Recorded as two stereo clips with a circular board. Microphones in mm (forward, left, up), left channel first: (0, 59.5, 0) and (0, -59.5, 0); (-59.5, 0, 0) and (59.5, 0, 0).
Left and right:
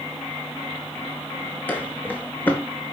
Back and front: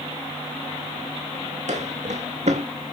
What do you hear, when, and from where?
1.7 s footsteps: 15° left, 1.9 m